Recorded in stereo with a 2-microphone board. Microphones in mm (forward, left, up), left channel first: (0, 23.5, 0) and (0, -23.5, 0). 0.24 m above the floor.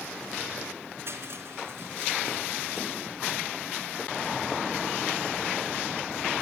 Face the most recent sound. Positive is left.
turn(degrees=-60)  # may be behind; listen again after turning